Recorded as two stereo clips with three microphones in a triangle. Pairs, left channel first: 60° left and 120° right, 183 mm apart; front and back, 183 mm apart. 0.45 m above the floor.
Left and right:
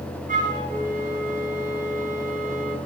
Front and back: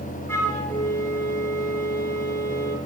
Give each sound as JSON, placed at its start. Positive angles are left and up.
{"t": 0.3, "sound": "a flute", "azimuth_deg": -75, "distance_m": 6.0}